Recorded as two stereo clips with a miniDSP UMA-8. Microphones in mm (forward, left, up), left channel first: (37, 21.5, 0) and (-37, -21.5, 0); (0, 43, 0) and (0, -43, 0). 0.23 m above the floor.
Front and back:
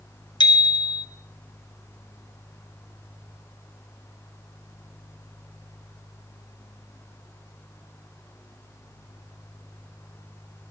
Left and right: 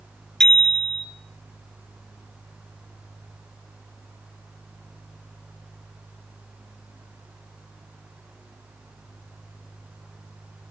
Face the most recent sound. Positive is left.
turn(degrees=10)